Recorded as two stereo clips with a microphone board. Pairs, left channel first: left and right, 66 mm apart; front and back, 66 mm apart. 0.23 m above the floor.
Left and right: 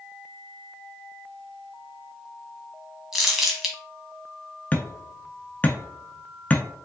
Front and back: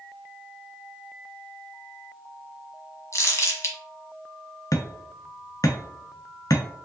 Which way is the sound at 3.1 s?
10° right.